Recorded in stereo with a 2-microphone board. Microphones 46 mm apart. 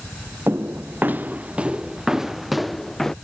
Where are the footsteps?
60° right (ahead or behind); by 3.1 s 5° left (ahead or behind).